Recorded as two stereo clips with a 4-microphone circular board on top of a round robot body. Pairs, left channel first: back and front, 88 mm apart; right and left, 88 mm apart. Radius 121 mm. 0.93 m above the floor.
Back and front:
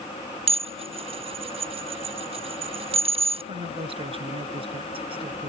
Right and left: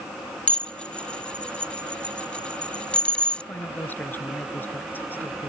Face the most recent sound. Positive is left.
turn(degrees=-20)